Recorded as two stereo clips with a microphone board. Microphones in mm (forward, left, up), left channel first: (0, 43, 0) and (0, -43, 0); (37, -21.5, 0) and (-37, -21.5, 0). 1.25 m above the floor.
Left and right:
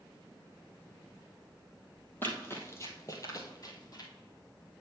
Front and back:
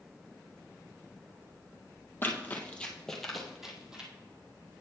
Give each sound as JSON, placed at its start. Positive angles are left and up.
{"t": 2.2, "sound": "running footsteps", "azimuth_deg": 40, "distance_m": 1.5}